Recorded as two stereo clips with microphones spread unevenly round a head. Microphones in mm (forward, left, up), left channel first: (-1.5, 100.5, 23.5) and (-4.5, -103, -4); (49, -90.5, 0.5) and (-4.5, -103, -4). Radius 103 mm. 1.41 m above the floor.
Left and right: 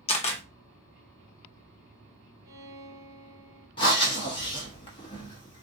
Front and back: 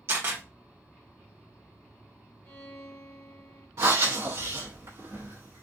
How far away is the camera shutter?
About 0.9 m.